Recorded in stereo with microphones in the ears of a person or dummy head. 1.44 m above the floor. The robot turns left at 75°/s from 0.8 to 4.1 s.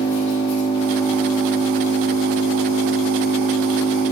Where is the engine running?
40° left, 2.5 m; by 4.1 s 150° left, 2.5 m.